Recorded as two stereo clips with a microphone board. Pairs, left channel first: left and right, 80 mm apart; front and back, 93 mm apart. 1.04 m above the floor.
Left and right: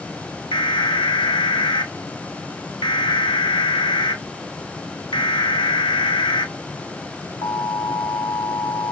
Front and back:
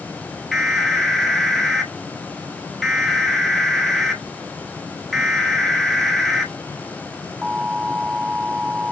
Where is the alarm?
90° left, 1.1 m.